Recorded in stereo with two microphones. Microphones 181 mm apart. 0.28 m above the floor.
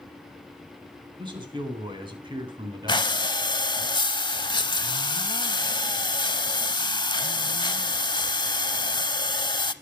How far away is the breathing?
About 0.6 m.